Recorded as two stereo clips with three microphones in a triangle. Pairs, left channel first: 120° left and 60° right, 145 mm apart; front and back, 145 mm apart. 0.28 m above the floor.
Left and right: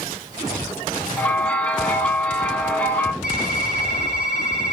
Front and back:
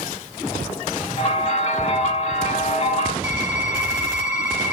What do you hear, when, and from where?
1.2 s a bell: 40° left, 0.5 m
3.2 s typing on a keyboard: 105° left, 2 m